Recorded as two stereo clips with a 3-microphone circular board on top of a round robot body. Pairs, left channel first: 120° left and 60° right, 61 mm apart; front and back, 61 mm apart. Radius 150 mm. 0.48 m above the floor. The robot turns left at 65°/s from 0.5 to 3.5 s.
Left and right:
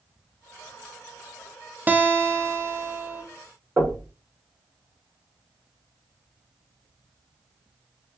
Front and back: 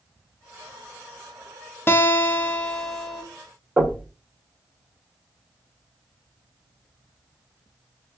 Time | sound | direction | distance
1.9 | a guitar | 15° right | 0.9 m
3.8 | knocking | 120° right | 2.0 m